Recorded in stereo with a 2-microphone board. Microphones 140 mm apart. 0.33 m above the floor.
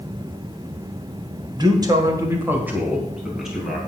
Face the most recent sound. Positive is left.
turn(degrees=0)  # may be behind; listen again after turning